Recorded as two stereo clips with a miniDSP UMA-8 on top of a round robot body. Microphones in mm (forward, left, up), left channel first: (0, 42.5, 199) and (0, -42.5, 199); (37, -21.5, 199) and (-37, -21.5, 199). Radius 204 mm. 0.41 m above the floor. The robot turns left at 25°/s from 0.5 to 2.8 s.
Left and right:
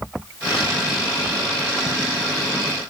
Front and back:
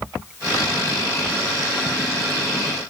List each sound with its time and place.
Only background noise.